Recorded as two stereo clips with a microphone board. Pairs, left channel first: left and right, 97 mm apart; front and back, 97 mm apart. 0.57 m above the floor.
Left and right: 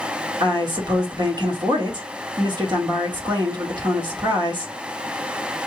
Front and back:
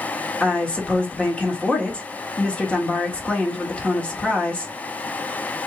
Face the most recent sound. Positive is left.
turn(degrees=-75)